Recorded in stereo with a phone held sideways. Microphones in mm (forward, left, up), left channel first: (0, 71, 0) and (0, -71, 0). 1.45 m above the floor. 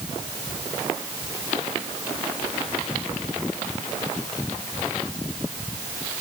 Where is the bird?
No bird in this recording.